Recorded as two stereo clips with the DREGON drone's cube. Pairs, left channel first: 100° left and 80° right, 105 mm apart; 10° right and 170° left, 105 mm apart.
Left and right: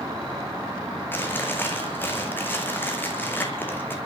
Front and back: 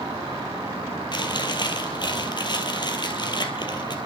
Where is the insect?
135° right, 8.5 m.